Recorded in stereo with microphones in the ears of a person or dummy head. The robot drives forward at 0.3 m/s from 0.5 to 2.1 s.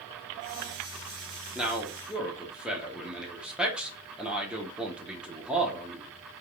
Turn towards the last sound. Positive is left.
turn(degrees=-5)  # may be behind; listen again after turning